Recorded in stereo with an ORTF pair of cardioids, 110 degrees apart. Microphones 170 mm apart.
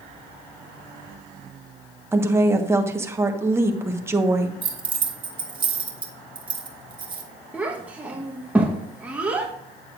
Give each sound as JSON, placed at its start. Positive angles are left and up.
{"t": 2.1, "sound": "a woman speaking", "azimuth_deg": -15, "distance_m": 1.2}
{"t": 4.6, "sound": "keys jangling", "azimuth_deg": -30, "distance_m": 1.5}
{"t": 7.5, "sound": "a child speaking", "azimuth_deg": -10, "distance_m": 1.1}